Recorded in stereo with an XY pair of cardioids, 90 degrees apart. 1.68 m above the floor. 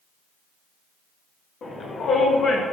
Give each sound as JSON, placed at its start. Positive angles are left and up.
{"t": 1.6, "sound": "a shout", "azimuth_deg": 65, "distance_m": 2.5}